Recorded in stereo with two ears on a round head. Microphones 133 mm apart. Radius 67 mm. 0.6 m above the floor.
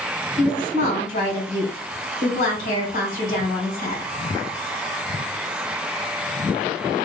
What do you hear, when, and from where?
0.4 s a woman speaking: 55° left (ahead or behind), 2 m